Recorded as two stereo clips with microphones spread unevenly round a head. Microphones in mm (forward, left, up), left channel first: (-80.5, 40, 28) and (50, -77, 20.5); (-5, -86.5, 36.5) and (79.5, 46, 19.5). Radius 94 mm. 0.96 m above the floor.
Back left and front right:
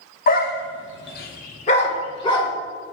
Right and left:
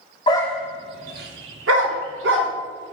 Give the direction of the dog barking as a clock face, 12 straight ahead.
6 o'clock.